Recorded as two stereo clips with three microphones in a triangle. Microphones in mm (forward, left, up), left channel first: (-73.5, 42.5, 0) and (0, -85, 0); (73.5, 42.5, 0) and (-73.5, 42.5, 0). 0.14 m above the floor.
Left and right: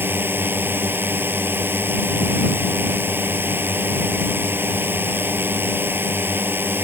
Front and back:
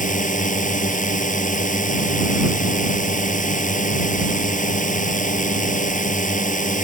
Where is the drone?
15° left.